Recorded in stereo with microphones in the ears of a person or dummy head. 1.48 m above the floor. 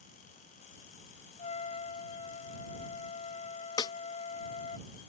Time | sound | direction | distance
1.4 | a trumpet | 35° left (ahead or behind) | ?
3.8 | a snare drum | 20° left (ahead or behind) | ?